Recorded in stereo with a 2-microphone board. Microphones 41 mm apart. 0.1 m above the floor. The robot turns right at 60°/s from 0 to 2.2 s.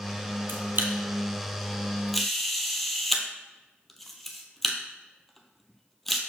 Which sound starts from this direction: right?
A camera shutter, at 0.5 s.